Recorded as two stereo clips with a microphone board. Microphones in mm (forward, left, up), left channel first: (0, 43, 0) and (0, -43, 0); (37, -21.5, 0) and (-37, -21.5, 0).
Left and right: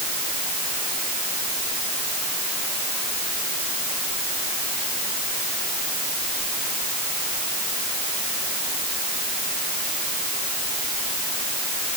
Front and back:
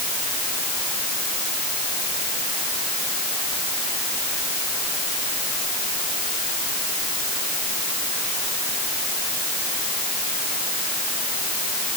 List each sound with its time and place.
Only background noise.